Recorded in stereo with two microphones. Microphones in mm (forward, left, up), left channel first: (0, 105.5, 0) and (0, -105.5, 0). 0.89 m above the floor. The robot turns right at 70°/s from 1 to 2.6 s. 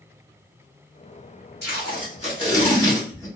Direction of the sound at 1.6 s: 55° left (ahead or behind).